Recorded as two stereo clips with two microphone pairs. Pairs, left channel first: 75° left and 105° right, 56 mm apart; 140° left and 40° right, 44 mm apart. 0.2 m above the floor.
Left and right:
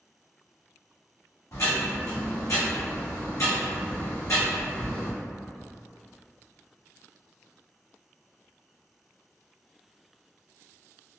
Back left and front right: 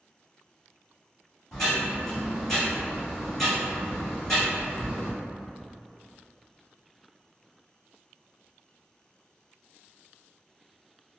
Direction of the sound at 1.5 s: 60° left.